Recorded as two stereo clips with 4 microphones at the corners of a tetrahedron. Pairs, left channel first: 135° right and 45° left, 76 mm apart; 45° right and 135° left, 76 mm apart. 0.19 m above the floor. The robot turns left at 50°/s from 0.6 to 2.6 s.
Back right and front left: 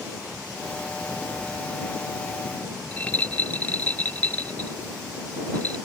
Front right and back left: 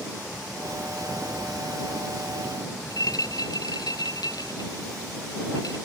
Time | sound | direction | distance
2.9 | a rattle | 70° right | ?